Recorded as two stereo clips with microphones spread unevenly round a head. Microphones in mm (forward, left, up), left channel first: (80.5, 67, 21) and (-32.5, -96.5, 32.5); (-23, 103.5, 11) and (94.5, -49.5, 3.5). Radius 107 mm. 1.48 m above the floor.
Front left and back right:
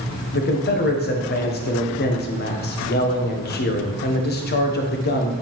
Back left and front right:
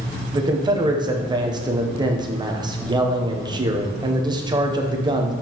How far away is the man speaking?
About 0.9 m.